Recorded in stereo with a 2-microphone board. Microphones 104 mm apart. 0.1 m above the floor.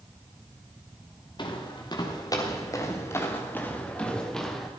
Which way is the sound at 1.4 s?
50° left (ahead or behind).